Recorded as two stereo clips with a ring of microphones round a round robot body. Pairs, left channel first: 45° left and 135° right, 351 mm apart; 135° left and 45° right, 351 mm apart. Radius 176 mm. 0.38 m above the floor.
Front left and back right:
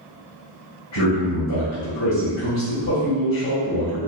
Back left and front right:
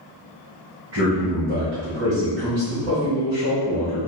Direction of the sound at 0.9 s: Straight ahead.